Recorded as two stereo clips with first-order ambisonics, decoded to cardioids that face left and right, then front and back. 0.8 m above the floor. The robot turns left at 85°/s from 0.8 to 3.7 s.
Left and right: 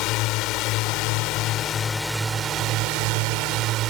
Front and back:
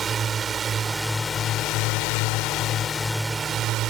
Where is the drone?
115° left; by 3.9 s 135° right.